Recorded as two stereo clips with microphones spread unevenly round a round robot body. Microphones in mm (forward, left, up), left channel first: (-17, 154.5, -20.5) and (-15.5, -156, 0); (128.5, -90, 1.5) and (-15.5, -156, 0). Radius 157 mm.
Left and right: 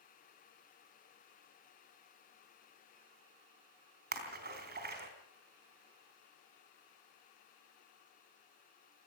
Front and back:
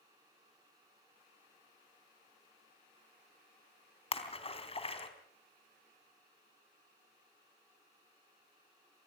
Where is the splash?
30° right, 3.5 m.